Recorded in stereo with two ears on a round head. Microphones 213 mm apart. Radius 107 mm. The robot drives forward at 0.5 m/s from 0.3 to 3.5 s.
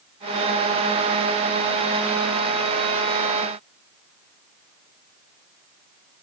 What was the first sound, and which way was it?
Only background noise.